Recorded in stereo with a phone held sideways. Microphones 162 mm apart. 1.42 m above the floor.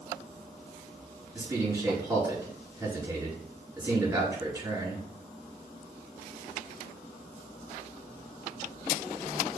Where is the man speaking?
15° right (ahead or behind), 4.5 m.